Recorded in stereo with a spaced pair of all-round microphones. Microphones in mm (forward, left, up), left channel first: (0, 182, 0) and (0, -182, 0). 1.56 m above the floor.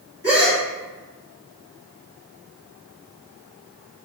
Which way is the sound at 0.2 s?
30° right (ahead or behind).